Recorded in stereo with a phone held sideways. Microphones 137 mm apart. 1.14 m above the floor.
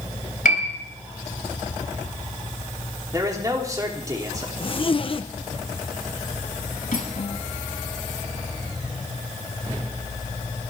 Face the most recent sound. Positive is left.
turn(degrees=80)